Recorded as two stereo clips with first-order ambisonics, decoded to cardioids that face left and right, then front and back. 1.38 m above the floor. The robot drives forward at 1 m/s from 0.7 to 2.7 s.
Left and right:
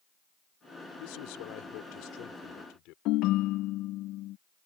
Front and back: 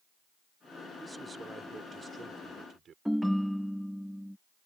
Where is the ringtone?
90° left.